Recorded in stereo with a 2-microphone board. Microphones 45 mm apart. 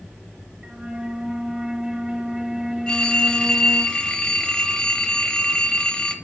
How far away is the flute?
About 0.8 m.